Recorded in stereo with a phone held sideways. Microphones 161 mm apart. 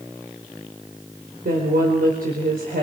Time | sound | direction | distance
1.4 | a woman speaking | 75° right (ahead or behind) | 4.5 m